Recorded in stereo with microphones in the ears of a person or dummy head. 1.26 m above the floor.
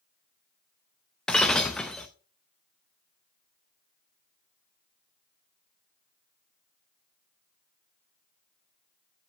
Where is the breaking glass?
Centre (ahead or behind), 0.5 m.